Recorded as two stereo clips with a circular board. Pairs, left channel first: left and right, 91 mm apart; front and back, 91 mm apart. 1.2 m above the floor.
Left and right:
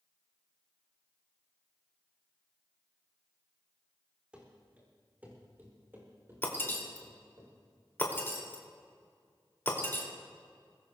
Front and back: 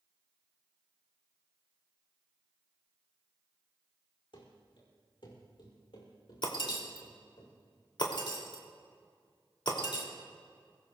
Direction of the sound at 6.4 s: 25° left.